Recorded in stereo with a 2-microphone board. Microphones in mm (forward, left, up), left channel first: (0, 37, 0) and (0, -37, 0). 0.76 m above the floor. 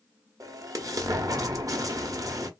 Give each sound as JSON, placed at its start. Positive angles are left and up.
{"t": 0.4, "sound": "an explosion", "side_deg": -50, "distance_m": 0.7}